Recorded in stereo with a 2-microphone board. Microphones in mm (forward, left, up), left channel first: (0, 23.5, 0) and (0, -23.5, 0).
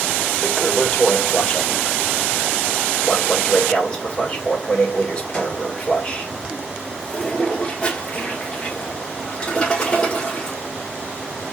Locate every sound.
0.4 s a toilet flushing: 20° left (ahead or behind), 2.5 m